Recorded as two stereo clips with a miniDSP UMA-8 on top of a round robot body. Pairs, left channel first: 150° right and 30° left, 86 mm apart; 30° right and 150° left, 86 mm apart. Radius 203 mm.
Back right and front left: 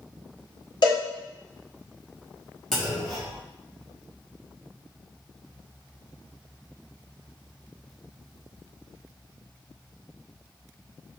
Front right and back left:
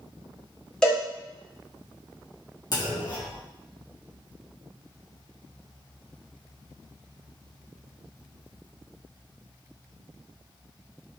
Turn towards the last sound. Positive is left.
turn(degrees=-65)